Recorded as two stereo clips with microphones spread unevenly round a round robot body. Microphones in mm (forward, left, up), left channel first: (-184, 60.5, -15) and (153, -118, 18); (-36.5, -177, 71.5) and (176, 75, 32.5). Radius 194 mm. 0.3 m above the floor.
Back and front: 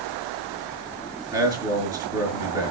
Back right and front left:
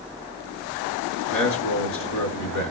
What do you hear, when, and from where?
1.3 s a man speaking: 110° right, 5 m